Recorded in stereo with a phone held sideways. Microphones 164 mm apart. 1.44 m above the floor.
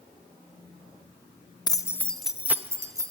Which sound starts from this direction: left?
Keys jangling, at 1.7 s.